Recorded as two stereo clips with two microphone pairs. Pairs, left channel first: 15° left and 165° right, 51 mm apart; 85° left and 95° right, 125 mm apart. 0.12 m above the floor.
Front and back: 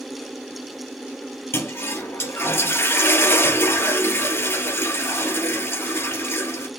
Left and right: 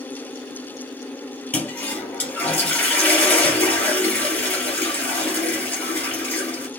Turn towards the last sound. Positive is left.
turn(degrees=10)